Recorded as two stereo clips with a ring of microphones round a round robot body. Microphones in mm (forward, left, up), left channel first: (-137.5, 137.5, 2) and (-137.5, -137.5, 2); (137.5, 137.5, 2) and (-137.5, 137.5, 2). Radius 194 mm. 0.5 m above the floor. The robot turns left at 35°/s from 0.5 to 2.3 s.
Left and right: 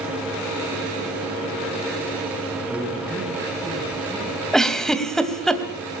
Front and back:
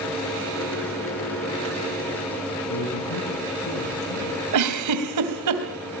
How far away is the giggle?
About 3 m.